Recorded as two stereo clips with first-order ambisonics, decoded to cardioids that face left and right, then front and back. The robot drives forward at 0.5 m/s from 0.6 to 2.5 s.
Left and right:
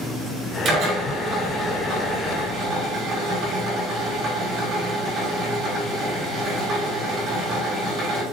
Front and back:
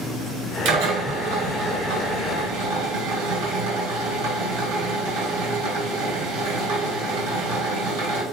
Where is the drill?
150° right, 5 m; by 8.2 s 155° right, 6 m.